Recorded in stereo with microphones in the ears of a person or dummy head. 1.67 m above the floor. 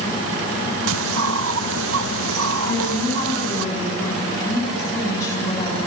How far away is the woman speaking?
About 7 m.